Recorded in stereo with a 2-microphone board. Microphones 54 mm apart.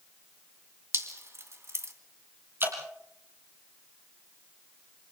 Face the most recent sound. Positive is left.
turn(degrees=-50)  # may be behind; listen again after turning